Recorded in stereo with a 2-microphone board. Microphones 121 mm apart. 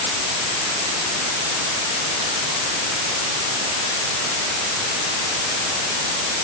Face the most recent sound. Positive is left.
No sound to turn to.